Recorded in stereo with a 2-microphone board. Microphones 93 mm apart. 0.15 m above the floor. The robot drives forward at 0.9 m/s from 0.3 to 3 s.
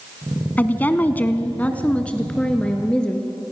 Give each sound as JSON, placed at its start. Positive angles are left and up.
{"t": 0.6, "sound": "a woman speaking", "side_deg": 20, "distance_m": 1.1}